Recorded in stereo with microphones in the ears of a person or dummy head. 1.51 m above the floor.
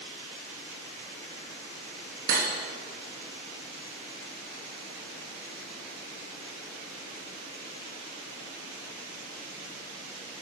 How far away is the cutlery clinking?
About 1.3 m.